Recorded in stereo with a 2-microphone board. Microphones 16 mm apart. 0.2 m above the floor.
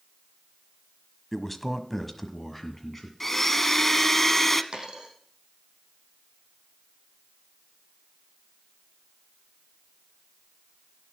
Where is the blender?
15° left (ahead or behind), 0.8 m.